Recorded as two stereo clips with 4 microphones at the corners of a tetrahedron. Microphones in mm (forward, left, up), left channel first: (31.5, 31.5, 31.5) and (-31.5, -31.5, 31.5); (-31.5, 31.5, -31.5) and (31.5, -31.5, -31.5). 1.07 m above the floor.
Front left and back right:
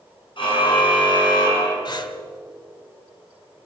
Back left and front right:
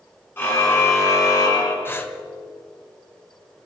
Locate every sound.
0.4 s a car horn: 70° left, 4.5 m; by 1.8 s 90° left, 4 m
1.9 s breathing: 75° left, 1.4 m